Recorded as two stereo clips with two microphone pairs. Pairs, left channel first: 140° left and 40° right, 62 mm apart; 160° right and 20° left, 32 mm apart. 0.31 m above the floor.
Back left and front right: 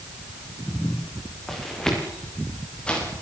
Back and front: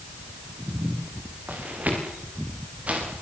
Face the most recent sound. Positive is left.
turn(degrees=65)